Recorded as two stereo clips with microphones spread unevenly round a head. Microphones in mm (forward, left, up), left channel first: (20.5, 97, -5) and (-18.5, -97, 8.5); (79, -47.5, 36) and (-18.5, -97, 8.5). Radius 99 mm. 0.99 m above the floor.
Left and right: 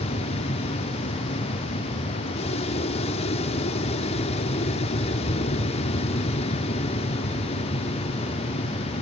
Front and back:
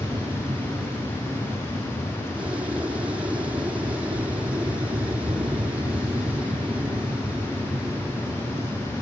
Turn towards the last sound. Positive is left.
turn(degrees=135)